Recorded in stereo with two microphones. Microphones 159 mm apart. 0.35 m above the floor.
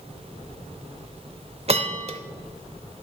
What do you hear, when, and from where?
1.7 s a bell: 40° right (ahead or behind), 0.8 m